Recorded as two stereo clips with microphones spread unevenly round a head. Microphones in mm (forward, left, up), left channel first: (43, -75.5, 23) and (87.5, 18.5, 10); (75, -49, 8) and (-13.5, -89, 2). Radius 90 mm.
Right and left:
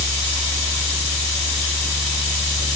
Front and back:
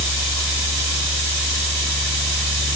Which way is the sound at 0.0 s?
160° left.